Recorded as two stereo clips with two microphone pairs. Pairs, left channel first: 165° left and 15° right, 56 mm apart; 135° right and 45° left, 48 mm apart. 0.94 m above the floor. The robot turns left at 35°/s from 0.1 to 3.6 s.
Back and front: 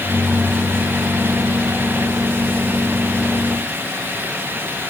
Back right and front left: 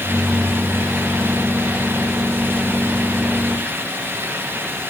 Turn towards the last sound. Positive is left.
No sound to turn to.